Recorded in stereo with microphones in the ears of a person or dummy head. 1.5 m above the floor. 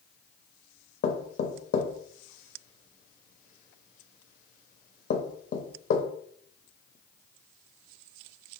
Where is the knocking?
50° left (ahead or behind), 0.5 m.